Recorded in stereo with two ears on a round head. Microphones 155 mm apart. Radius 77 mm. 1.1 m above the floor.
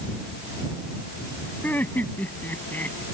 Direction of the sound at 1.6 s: 10° left (ahead or behind).